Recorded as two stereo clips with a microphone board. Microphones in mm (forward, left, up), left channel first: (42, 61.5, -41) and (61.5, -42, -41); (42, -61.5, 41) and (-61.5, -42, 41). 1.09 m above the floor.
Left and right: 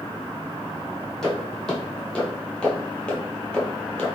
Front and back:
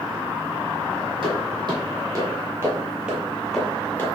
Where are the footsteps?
Straight behind, 1.7 m; by 4.1 s 30° left, 1.2 m.